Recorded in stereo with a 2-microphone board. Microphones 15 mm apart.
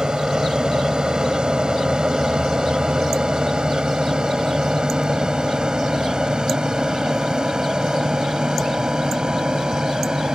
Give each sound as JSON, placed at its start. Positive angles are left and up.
{"t": 0.0, "sound": "an aircraft", "side_deg": -60}